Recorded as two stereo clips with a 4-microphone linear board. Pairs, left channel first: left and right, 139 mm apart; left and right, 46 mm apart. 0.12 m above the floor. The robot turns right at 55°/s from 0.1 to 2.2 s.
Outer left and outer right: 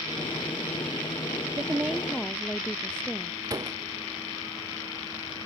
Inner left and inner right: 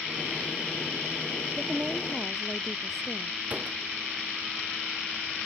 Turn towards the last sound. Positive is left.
turn(degrees=-25)  # may be behind; listen again after turning